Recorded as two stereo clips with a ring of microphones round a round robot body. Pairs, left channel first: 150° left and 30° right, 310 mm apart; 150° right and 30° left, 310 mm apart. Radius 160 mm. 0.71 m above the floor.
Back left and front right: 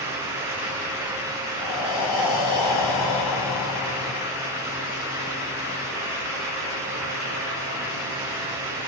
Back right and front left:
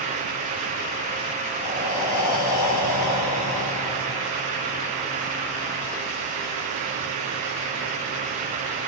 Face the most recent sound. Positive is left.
turn(degrees=170)